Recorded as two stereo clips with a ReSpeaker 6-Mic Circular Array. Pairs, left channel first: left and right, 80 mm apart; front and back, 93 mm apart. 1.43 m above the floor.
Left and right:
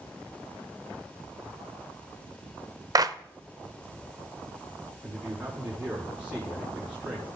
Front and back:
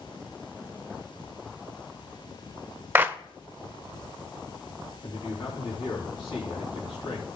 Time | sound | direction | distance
3.0 | a clap | 115° right | 0.6 m
5.0 | a man speaking | 10° right | 4 m